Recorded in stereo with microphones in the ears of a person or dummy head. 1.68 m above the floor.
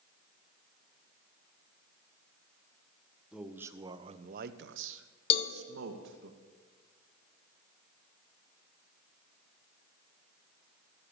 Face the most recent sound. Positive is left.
turn(degrees=35)  # may be behind; listen again after turning